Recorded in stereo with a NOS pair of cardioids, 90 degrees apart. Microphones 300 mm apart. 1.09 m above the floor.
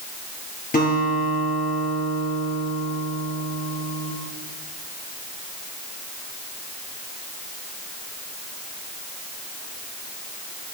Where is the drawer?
No drawer in this recording.